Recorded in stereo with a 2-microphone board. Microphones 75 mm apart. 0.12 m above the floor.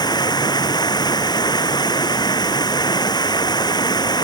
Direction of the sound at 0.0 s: 70° left (ahead or behind).